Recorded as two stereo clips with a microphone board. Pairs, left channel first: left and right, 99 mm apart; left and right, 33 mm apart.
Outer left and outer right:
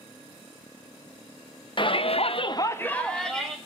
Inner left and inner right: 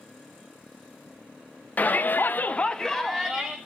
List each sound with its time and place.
1.8 s a shout: 50° left (ahead or behind), 0.7 m; by 3.5 s centre (ahead or behind), 1.3 m